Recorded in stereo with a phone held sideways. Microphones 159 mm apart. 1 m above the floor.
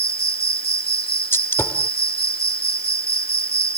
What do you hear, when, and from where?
0.0 s an insect: 85° left
1.3 s a gunshot: 15° left (ahead or behind)